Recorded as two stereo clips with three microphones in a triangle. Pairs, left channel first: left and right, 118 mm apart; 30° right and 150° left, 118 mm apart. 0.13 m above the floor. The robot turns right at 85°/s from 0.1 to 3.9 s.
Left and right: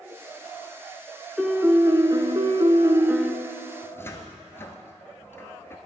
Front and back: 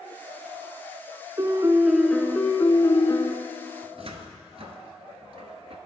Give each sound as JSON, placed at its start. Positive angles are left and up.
{"t": 1.4, "sound": "a piano", "azimuth_deg": -175, "distance_m": 0.6}
{"t": 3.8, "sound": "a cupboard door", "azimuth_deg": 150, "distance_m": 0.6}